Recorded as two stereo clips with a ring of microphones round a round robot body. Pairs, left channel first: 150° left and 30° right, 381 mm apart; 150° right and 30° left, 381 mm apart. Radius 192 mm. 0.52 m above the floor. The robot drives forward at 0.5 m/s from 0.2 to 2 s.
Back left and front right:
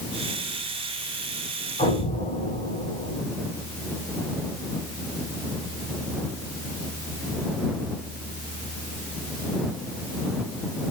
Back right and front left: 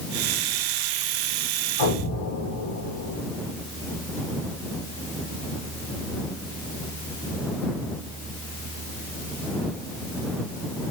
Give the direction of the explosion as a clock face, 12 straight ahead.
5 o'clock.